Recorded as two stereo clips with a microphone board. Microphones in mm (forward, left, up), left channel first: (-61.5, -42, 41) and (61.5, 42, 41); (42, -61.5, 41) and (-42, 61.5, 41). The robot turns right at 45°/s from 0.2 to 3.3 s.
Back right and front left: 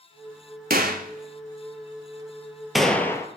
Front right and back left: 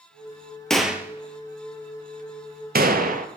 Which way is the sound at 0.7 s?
30° left.